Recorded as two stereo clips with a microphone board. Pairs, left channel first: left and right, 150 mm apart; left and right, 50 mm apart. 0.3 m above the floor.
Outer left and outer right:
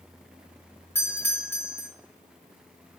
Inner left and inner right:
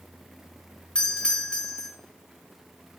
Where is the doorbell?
15° left (ahead or behind), 1.3 m.